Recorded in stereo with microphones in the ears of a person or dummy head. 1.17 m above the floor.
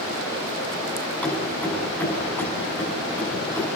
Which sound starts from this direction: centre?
Keys jangling, at 1.2 s.